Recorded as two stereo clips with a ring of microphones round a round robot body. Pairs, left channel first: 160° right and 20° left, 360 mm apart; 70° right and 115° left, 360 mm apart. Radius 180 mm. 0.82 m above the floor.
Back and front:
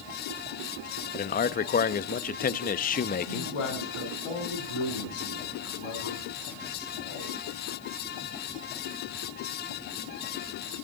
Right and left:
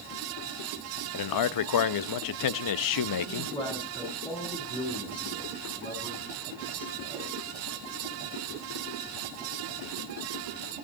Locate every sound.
1.1 s a man speaking: 95° right, 0.6 m
3.3 s a man speaking: 145° right, 6.5 m